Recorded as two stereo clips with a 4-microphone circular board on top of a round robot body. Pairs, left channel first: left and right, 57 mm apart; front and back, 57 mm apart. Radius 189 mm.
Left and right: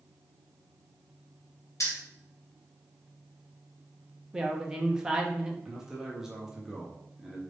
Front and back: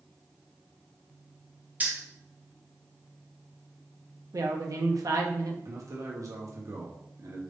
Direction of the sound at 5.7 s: 170° right.